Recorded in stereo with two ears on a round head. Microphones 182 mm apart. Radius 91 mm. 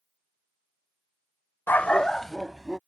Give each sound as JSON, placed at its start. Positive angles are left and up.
{"t": 1.7, "sound": "a dog barking", "side_deg": 10}